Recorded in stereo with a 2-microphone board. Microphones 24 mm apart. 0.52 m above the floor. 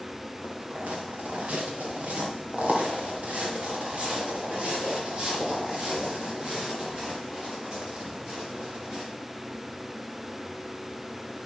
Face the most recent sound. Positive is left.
turn(degrees=-25)  # may be behind; listen again after turning